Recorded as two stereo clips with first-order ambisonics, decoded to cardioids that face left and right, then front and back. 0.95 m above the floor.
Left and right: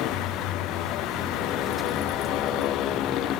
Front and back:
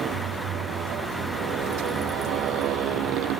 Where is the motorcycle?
125° left; by 3.4 s 140° left.